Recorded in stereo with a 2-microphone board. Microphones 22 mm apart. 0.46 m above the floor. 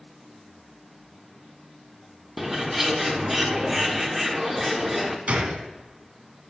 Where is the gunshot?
80° right, 0.8 m.